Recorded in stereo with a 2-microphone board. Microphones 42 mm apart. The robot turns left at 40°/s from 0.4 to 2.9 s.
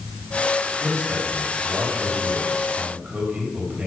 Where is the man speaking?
60° right, 4 m; by 3.9 s 145° right, 4 m.